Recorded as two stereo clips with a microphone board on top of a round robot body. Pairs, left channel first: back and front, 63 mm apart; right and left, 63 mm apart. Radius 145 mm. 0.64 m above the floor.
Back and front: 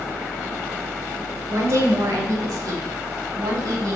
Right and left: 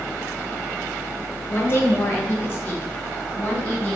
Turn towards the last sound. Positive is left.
turn(degrees=-20)